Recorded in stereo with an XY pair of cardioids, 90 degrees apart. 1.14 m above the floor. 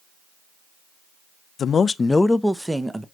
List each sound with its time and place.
1.6 s a man speaking: 60° left, 0.5 m; by 3.0 s 20° right, 0.8 m